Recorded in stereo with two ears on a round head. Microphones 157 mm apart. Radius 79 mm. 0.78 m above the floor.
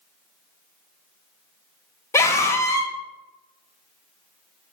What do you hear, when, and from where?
2.1 s a scream: 15° left (ahead or behind), 0.6 m